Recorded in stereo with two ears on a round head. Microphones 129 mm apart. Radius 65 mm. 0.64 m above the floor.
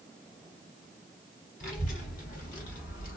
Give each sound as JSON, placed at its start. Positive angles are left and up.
{"t": 1.6, "sound": "a child speaking", "side_deg": 65, "distance_m": 2.0}